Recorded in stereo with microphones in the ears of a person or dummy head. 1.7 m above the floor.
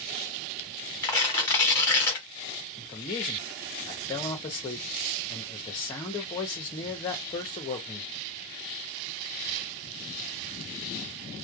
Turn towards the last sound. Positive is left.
turn(degrees=25)  # may be behind; listen again after turning